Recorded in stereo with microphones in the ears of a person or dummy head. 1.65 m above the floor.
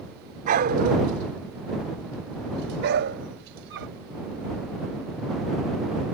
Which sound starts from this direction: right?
A dog barking, at 0.5 s.